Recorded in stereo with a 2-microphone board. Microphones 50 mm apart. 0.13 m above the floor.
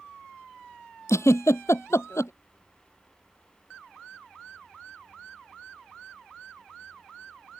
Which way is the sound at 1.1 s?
75° left (ahead or behind).